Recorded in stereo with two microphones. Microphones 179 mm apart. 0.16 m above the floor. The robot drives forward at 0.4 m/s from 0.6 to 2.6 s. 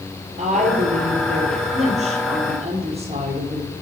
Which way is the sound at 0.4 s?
45° right (ahead or behind).